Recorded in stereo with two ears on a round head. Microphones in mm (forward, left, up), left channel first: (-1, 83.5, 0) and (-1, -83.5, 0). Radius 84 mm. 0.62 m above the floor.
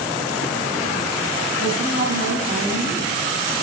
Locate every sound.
1.6 s a woman speaking: 45° right (ahead or behind), 6 m